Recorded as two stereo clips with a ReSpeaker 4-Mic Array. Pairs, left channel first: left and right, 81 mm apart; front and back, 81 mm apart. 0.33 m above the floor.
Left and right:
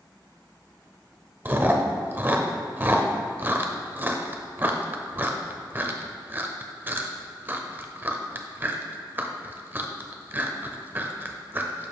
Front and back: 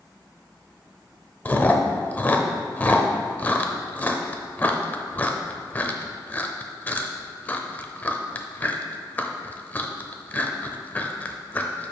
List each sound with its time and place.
1.4 s chewing: 50° right, 0.6 m